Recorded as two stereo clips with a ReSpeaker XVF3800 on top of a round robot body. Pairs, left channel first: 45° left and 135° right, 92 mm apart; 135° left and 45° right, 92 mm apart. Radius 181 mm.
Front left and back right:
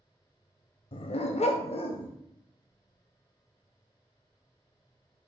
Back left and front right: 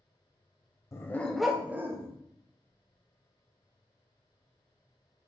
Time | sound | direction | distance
0.9 | a dog barking | 75° left | 0.7 m